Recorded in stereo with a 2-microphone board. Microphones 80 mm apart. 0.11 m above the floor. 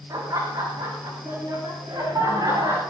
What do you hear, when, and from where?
0.1 s laughter: 50° right (ahead or behind), 6.5 m; by 2.8 s 55° right (ahead or behind), 9.5 m